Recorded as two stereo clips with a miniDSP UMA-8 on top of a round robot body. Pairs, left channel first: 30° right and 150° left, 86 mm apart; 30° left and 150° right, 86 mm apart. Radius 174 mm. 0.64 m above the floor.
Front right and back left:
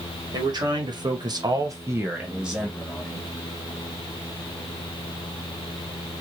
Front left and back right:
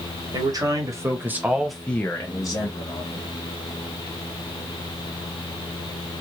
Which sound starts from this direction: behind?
A man speaking, at 0.3 s.